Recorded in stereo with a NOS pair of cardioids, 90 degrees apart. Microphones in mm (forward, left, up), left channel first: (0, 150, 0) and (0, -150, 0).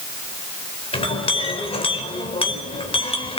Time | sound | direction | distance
0.9 | a clink | 20° left | 4 m